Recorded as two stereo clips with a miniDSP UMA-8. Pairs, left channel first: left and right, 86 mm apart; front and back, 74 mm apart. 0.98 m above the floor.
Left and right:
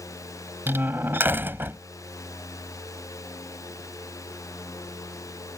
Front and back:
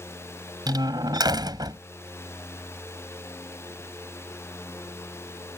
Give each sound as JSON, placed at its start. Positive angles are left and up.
{"t": 0.7, "sound": "a door slam", "azimuth_deg": -155}